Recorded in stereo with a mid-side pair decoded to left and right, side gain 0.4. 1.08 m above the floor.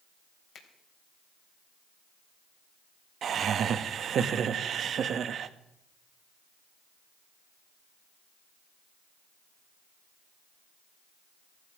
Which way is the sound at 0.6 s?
65° left.